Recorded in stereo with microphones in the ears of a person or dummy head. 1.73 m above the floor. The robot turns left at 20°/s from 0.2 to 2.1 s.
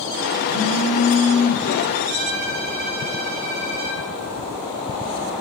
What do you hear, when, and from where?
0.5 s a phone buzzing: centre (ahead or behind), 1.6 m; by 1.7 s 20° right (ahead or behind), 1.6 m
2.1 s a violin: 45° right (ahead or behind), 0.7 m